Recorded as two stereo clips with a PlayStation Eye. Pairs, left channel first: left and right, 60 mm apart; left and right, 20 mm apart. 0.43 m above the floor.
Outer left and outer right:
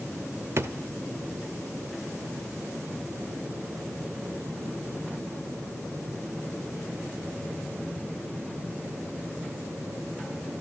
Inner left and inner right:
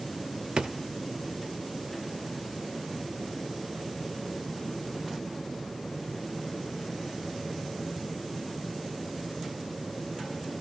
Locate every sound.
0.6 s a drawer: 45° right (ahead or behind), 0.5 m